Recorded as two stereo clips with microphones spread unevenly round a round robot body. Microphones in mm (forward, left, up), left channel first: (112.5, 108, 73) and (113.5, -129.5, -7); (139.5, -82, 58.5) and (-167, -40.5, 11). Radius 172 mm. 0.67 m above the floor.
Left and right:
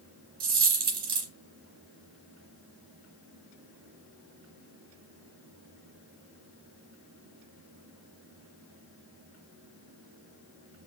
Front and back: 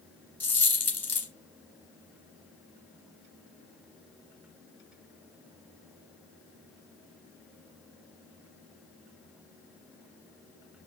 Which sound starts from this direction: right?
A dropped coin, at 0.4 s.